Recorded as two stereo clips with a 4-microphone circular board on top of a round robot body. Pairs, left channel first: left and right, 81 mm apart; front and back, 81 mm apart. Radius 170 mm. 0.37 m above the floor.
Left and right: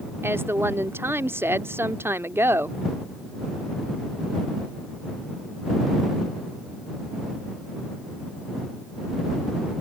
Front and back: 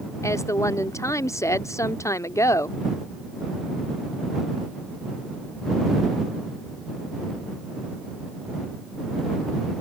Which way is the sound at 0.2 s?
40° right.